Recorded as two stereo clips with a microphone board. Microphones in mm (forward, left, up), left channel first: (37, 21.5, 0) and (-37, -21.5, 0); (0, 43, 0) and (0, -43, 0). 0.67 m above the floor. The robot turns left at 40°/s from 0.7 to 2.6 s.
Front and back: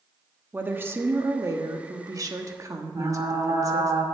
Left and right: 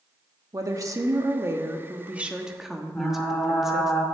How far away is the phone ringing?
No phone ringing in this recording.